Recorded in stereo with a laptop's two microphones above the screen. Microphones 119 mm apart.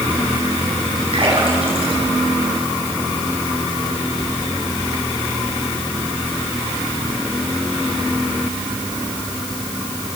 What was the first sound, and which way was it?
A splash, 50° right (ahead or behind).